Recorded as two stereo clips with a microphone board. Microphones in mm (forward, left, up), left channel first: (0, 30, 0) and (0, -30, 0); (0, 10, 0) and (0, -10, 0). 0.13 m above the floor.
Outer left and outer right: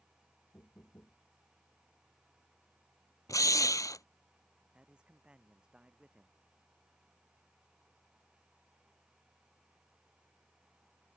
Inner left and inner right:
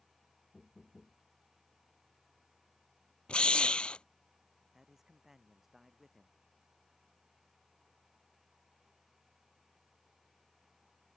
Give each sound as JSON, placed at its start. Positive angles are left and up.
{"t": 0.5, "sound": "knocking", "side_deg": 50}
{"t": 3.3, "sound": "a drill", "side_deg": 65}
{"t": 4.7, "sound": "a man speaking", "side_deg": -15}